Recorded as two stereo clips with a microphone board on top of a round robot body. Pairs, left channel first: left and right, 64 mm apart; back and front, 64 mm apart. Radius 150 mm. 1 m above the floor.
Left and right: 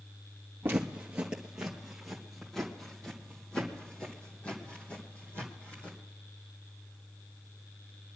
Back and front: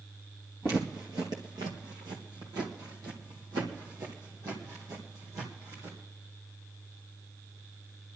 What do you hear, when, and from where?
0.6 s footsteps: 35° right, 1.3 m; by 6.0 s 30° left, 3.5 m